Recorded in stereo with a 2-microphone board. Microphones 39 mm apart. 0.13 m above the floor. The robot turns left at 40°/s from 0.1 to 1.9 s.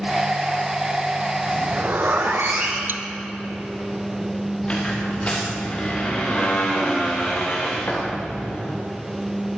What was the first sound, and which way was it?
A zipper, 55° right (ahead or behind).